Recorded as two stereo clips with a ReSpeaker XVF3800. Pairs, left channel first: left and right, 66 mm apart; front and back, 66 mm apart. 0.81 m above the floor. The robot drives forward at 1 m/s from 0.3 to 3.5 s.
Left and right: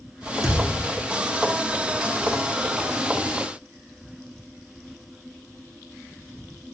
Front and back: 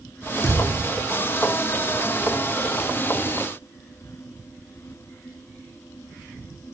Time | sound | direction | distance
0.4 | a thud | 55° right | 4 m